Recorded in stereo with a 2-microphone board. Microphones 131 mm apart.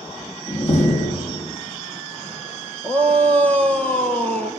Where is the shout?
10° left (ahead or behind), 4 m.